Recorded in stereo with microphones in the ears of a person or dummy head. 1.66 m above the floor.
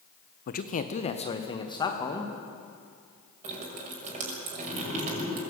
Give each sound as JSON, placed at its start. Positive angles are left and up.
{"t": 0.5, "sound": "a man speaking", "side_deg": 55, "distance_m": 1.2}
{"t": 3.4, "sound": "dripping", "side_deg": -45, "distance_m": 6.0}